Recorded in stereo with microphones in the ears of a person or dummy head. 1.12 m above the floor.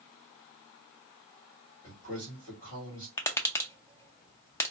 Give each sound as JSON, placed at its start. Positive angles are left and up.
{"t": 1.8, "sound": "a man speaking", "side_deg": 35, "distance_m": 1.8}
{"t": 3.2, "sound": "tapping", "side_deg": 20, "distance_m": 0.6}